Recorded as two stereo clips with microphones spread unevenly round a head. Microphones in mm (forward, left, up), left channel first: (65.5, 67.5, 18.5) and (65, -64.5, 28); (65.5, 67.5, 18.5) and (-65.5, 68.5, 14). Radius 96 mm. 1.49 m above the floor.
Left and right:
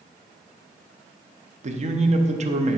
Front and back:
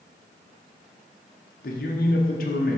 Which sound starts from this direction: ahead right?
A man speaking, at 1.6 s.